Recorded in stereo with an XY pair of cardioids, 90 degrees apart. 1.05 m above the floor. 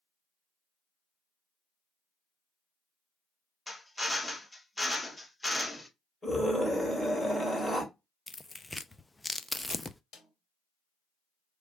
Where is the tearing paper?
20° left, 0.5 m.